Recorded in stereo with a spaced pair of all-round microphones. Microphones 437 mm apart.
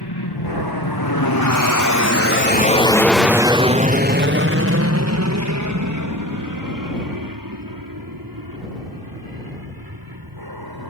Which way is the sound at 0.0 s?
60° left (ahead or behind).